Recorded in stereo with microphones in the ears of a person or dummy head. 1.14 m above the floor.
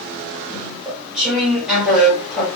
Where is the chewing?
Centre (ahead or behind), 1.0 m.